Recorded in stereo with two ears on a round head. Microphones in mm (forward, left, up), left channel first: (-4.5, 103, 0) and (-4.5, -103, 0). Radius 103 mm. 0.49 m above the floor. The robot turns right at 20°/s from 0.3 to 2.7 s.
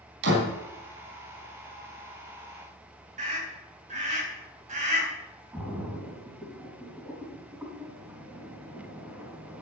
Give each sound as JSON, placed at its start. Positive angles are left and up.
{"t": 0.2, "sound": "a door slam", "side_deg": -50, "distance_m": 3.5}
{"t": 3.2, "sound": "a scream", "side_deg": -35, "distance_m": 4.0}
{"t": 5.5, "sound": "a splash", "side_deg": -10, "distance_m": 4.0}